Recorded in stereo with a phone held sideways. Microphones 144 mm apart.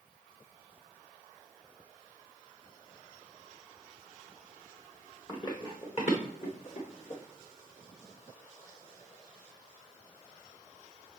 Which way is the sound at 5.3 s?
30° left (ahead or behind).